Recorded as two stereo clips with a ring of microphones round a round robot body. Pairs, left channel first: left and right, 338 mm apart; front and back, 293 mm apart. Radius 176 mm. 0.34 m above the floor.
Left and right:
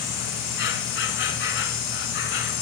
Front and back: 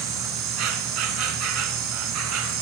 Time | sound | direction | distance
0.0 | an insect | 150° left | 1.9 m